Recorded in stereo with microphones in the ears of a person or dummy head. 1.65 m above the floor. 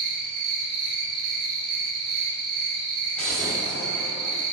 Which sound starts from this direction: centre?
An explosion, at 3.2 s.